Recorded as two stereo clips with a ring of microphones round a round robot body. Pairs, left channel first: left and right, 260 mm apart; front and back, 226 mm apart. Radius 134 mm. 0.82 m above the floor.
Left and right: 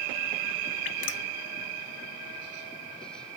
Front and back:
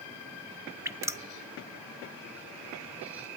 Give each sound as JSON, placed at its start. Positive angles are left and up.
{"t": 0.8, "sound": "dripping", "azimuth_deg": 105, "distance_m": 0.6}